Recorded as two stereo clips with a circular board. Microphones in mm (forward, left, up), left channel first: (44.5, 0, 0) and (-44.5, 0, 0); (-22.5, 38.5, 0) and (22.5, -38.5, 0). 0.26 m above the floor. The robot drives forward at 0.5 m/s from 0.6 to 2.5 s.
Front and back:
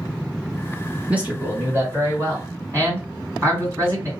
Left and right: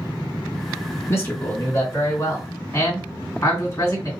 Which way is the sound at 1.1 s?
125° left.